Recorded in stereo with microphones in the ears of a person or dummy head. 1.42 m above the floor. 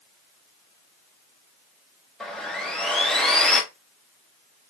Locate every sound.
2.2 s sawing: 5° left (ahead or behind), 0.7 m